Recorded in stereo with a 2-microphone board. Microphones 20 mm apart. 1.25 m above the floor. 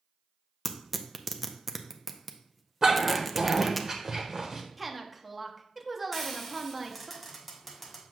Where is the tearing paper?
5° right (ahead or behind), 0.6 m.